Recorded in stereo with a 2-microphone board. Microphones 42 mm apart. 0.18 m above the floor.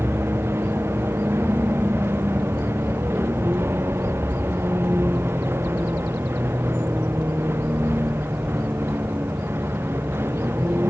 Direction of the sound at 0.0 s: 75° right (ahead or behind).